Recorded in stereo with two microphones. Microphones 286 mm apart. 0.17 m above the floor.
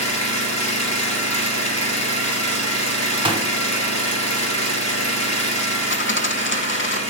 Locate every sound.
0.0 s an engine running: 65° left (ahead or behind), 2.5 m
3.2 s a gunshot: 20° right (ahead or behind), 0.9 m
5.9 s a dropped coin: 45° left (ahead or behind), 0.6 m